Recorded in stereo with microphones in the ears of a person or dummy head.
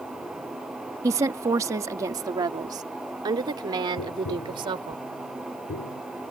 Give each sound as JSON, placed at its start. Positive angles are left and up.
{"t": 1.0, "sound": "a woman speaking", "side_deg": -15}
{"t": 4.0, "sound": "tapping", "side_deg": 80}